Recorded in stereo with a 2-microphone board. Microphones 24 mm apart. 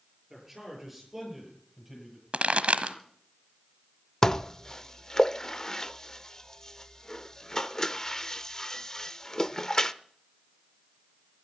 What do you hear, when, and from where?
0.3 s a man speaking: 10° right (ahead or behind), 7 m
2.3 s a pop: 70° right (ahead or behind), 1.2 m
4.2 s dishes clattering: 25° left (ahead or behind), 0.6 m